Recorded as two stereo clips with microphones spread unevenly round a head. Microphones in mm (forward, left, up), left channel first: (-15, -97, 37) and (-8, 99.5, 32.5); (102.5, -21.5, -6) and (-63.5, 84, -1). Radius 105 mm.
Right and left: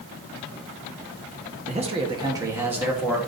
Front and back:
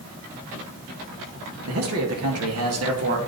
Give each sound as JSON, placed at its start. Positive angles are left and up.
{"t": 1.7, "sound": "a man speaking", "azimuth_deg": 145, "distance_m": 1.3}